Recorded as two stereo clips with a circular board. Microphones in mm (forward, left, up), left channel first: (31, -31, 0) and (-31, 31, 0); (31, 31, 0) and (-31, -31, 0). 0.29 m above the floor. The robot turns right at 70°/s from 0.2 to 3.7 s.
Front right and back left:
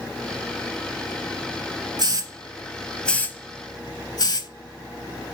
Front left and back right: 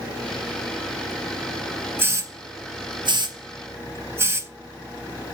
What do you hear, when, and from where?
2.0 s a hiss: 160° left, 0.5 m; by 4.5 s 80° right, 0.5 m